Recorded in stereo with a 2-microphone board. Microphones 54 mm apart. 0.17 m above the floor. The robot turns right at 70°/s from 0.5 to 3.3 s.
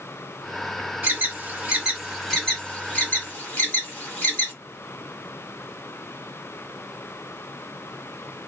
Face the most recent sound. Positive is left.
turn(degrees=40)  # may be behind; listen again after turning